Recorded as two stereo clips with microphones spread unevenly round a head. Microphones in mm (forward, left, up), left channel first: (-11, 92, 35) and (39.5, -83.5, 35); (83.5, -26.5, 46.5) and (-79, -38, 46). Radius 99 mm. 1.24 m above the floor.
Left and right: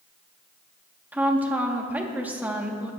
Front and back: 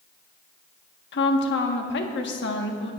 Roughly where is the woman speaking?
Ahead.